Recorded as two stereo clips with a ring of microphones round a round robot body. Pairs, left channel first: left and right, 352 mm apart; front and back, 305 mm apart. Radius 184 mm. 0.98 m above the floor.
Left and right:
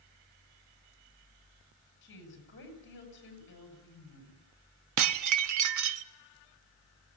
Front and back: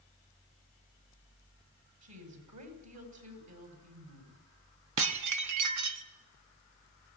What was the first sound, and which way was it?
A woman speaking, 150° left.